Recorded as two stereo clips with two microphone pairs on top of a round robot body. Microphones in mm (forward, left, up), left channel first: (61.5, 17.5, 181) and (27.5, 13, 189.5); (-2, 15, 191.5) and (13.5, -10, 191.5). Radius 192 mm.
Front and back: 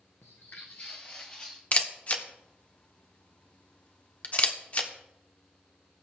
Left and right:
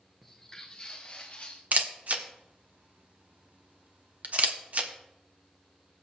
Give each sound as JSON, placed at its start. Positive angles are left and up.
{"t": 0.2, "sound": "footsteps", "azimuth_deg": 30, "distance_m": 0.6}
{"t": 1.7, "sound": "a camera shutter", "azimuth_deg": -30, "distance_m": 1.3}